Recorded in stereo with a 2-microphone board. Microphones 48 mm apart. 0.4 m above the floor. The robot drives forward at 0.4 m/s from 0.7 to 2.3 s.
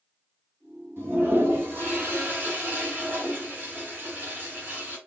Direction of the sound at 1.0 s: 50° right (ahead or behind).